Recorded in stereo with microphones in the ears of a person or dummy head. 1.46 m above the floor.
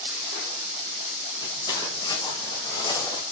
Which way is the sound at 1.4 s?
25° left (ahead or behind).